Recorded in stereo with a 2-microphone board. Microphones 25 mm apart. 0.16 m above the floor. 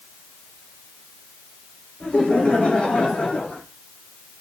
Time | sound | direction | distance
2.0 | laughter | 45° left (ahead or behind) | 8.5 m